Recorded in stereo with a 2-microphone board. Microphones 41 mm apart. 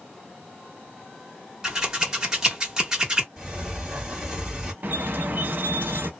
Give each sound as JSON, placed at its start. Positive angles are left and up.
{"t": 1.6, "sound": "scissors", "side_deg": -15, "distance_m": 1.2}
{"t": 3.4, "sound": "a sliding door", "side_deg": -10, "distance_m": 1.8}
{"t": 4.8, "sound": "a squeak", "side_deg": -55, "distance_m": 0.8}